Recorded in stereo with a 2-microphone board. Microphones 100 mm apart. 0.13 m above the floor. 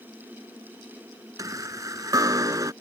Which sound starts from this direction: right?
A chime, at 1.4 s.